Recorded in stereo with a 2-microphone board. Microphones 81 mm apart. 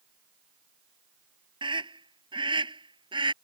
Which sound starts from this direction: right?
A scream, at 1.6 s.